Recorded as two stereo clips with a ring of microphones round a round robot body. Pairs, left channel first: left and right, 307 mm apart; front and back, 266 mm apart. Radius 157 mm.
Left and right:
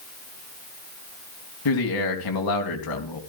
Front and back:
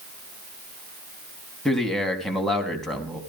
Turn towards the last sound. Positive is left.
turn(degrees=90)